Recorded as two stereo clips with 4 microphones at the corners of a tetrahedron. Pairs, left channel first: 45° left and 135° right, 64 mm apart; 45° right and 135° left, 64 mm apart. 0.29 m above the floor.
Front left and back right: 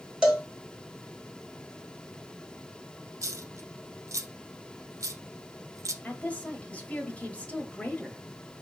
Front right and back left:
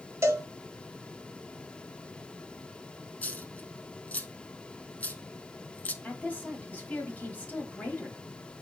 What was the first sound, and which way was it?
A cowbell, 150° left.